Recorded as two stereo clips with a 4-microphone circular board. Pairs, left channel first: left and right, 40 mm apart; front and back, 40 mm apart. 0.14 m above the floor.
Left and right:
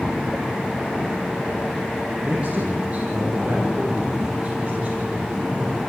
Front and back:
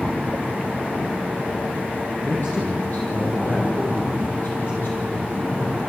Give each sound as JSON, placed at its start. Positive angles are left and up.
{"t": 2.2, "sound": "a man speaking", "azimuth_deg": -35, "distance_m": 5.0}